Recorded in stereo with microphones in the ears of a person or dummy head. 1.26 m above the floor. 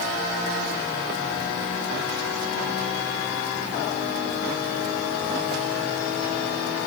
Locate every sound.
Only background noise.